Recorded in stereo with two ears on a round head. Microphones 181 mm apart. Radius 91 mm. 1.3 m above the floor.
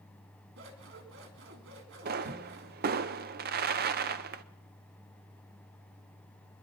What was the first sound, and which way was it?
Scissors, 65° right (ahead or behind).